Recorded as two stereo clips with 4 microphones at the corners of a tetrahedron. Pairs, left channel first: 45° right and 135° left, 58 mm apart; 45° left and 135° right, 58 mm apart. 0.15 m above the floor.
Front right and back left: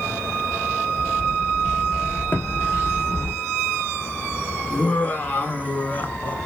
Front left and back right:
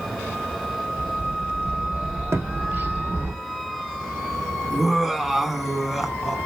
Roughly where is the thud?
Right.